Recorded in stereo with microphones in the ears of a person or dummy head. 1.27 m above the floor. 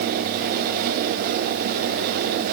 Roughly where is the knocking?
No knocking in this recording.